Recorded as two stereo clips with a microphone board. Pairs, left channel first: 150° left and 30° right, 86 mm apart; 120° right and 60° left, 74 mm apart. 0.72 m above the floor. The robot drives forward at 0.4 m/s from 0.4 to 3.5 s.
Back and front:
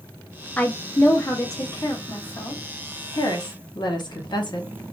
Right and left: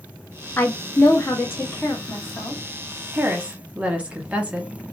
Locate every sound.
0.6 s a woman speaking: 155° right, 0.6 m; by 2.6 s 175° right, 1.2 m
3.1 s a woman speaking: 125° left, 0.9 m; by 4.7 s 130° left, 1.0 m